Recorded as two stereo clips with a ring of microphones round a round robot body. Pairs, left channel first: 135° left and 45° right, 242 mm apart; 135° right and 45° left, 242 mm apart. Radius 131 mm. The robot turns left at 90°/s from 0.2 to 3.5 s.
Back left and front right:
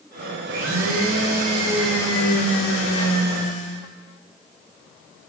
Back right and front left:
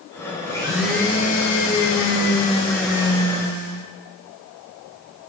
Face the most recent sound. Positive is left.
turn(degrees=80)